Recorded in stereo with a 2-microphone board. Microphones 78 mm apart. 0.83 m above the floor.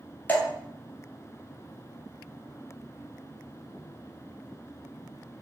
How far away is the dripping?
About 1.5 m.